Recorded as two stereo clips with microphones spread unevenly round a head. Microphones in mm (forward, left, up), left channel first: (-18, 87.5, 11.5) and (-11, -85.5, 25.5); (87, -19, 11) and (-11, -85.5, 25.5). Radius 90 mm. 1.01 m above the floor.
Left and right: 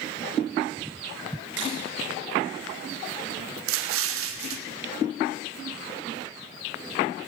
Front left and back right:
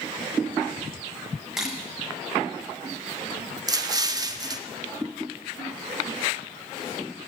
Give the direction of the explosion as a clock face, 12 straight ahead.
3 o'clock.